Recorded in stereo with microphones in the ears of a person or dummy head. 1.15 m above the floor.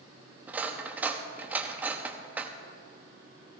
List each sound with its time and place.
0.5 s cutlery clinking: 15° right (ahead or behind), 0.8 m